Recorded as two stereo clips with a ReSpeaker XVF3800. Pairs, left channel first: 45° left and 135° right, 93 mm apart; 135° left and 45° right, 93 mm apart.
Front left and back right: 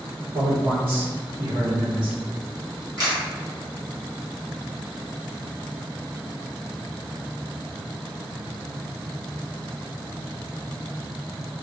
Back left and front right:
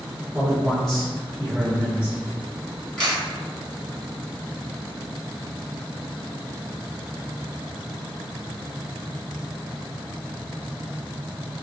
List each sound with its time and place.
0.3 s a man speaking: 130° right, 1.6 m; by 2.2 s 165° right, 1.6 m
3.0 s a camera shutter: 150° right, 1.4 m